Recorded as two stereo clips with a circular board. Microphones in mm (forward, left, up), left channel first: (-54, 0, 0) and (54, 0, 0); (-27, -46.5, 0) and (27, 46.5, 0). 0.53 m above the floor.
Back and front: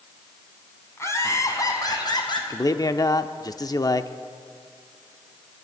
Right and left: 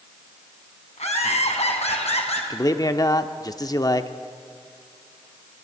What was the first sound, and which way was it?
Laughter, 115° right.